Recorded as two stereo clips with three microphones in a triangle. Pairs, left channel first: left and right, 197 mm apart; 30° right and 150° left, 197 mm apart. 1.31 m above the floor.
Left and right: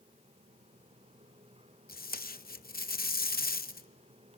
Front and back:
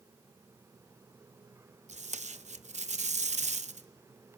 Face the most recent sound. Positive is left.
turn(degrees=110)